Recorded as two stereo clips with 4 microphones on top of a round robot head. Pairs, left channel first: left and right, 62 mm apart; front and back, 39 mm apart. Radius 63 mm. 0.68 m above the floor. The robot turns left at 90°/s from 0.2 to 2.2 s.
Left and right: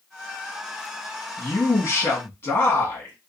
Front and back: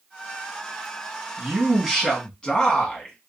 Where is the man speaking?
145° left, 1.4 m; by 3.1 s 70° left, 1.4 m.